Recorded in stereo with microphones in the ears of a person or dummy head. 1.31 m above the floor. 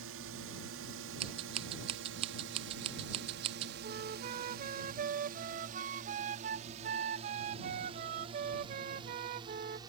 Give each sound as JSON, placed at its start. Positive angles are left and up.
{"t": 0.0, "sound": "a drone", "side_deg": -65}
{"t": 1.2, "sound": "scissors", "side_deg": -30}
{"t": 3.8, "sound": "a flute", "side_deg": -40}